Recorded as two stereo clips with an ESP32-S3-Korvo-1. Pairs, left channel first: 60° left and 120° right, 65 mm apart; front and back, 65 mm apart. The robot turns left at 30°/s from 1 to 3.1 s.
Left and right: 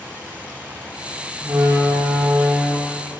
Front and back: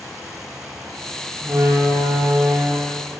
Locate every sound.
1.4 s a door slam: 140° right, 6.5 m; by 3.2 s 170° left, 6.5 m